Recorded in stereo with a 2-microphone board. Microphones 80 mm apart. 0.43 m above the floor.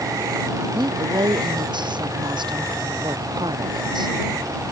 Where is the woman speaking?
85° right; by 4.2 s 70° right (ahead or behind).